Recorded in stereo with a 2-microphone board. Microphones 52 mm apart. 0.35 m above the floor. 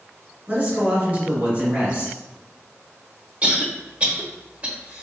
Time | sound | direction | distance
0.5 | a man speaking | 30° right (ahead or behind) | 1.9 m
3.4 | a cough | 30° right (ahead or behind) | 1.0 m